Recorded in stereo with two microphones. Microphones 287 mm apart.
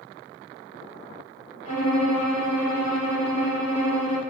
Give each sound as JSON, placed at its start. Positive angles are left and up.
{"t": 1.6, "sound": "a violin", "side_deg": 60, "distance_m": 3.5}